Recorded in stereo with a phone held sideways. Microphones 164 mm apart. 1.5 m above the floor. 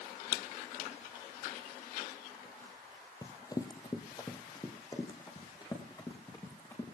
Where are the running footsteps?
20° left (ahead or behind), 1.8 m.